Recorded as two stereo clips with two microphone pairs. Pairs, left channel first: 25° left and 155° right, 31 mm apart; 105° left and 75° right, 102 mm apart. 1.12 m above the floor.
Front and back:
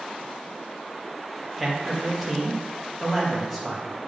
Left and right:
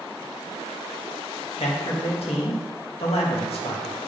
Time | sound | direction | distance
1.6 | a man speaking | 115° left | 1.5 m